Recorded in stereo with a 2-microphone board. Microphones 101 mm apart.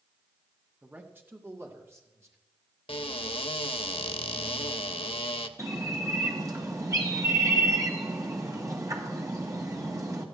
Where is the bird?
35° right (ahead or behind), 1.6 m.